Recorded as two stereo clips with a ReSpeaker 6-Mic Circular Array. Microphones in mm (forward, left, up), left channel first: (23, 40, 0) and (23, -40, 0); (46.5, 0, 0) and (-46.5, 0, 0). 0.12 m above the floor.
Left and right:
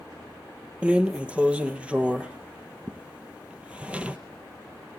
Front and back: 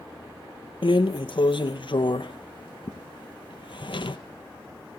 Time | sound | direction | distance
0.8 | a drawer | 15° right | 0.9 m